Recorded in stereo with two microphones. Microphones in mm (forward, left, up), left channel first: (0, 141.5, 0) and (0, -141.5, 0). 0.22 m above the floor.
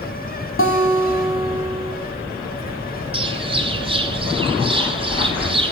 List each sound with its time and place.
0.6 s a guitar: 45° left (ahead or behind), 1.2 m
3.1 s a bird: 20° right (ahead or behind), 1.1 m